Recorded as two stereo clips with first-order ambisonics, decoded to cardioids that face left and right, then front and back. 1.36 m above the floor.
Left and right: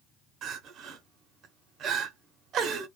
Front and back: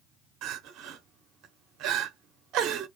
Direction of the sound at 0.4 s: 145° right.